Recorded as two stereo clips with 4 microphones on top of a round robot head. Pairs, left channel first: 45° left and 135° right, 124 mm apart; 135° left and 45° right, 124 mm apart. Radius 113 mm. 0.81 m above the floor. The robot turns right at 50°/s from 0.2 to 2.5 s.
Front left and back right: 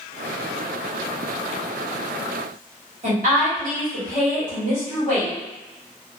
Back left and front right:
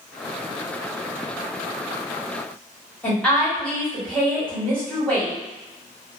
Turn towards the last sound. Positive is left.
turn(degrees=-145)